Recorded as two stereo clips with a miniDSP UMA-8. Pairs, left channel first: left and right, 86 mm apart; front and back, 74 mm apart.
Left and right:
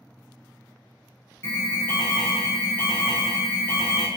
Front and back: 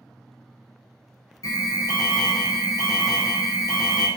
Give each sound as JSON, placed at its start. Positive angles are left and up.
{"t": 1.4, "sound": "an alarm", "azimuth_deg": 30, "distance_m": 0.6}